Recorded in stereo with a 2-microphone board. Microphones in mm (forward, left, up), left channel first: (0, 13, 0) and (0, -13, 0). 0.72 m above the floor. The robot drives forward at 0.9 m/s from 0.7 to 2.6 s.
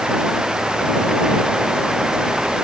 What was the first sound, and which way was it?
Only background noise.